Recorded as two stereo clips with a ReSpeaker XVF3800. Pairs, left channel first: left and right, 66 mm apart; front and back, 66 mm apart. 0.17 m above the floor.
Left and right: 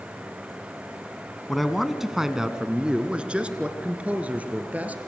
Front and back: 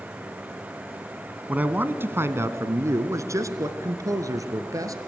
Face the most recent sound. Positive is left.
turn(degrees=-150)